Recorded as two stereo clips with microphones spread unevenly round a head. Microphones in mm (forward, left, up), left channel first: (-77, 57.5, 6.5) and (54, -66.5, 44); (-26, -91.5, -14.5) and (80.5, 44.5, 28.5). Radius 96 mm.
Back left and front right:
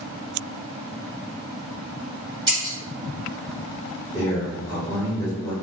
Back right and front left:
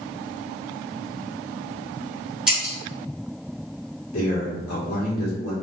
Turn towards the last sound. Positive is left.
turn(degrees=-145)